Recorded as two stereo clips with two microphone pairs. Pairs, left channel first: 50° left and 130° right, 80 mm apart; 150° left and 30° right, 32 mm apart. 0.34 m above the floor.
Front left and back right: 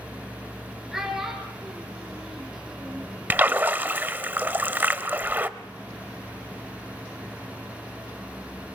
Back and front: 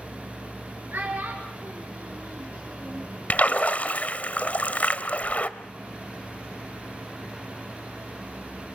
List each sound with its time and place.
0.9 s a child speaking: 45° right, 3 m
3.3 s a splash: 170° left, 0.8 m